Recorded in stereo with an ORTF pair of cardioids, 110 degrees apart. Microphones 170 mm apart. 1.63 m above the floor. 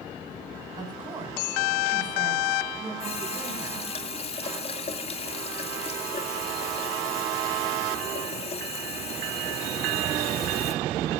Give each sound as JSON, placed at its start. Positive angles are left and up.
{"t": 0.8, "sound": "a woman speaking", "azimuth_deg": -25, "distance_m": 6.5}
{"t": 3.0, "sound": "a running tap", "azimuth_deg": 40, "distance_m": 2.5}